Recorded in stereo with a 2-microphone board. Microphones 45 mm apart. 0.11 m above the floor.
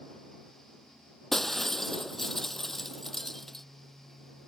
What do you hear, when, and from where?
1.3 s breaking glass: 5° left (ahead or behind)